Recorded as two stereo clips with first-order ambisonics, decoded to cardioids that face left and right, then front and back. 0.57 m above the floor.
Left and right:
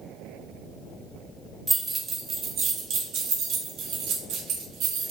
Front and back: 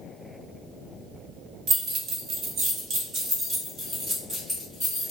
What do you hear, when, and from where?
1.7 s keys jangling: 160° right, 1.1 m; by 5.1 s 90° right, 2 m